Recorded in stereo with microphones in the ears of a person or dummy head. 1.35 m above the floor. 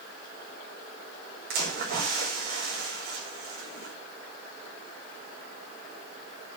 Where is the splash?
55° right (ahead or behind), 5 m.